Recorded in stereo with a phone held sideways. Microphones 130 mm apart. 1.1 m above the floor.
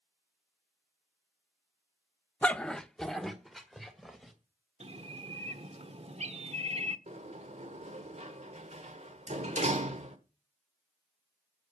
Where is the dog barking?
10° left (ahead or behind), 0.5 m; by 4.3 s centre (ahead or behind), 2.5 m.